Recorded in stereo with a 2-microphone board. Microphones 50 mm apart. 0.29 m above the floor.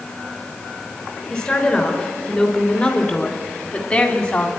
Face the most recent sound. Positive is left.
turn(degrees=20)  # may be behind; listen again after turning